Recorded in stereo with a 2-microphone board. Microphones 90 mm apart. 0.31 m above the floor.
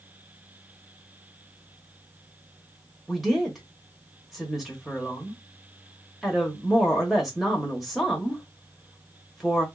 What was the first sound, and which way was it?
A woman speaking, centre (ahead or behind).